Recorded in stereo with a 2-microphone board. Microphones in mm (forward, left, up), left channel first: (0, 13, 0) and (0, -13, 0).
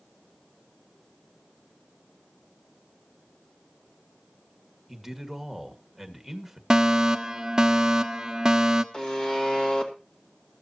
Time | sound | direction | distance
4.9 | a man speaking | centre (ahead or behind) | 1.9 m
6.7 | a fire alarm | 25° right (ahead or behind) | 1.1 m
8.9 | a buzzer | 35° left (ahead or behind) | 2 m